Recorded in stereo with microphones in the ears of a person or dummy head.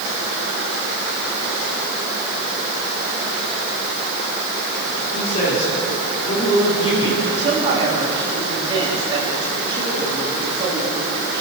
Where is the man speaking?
45° left (ahead or behind), 5.5 m; by 7.2 s 25° left (ahead or behind), 7.5 m.